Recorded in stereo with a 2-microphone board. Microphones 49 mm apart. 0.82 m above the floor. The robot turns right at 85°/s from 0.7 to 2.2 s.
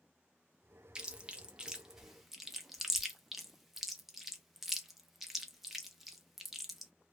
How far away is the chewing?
About 0.6 m.